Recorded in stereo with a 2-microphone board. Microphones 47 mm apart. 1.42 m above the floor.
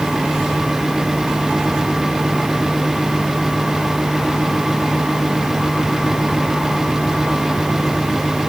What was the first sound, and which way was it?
Only background noise.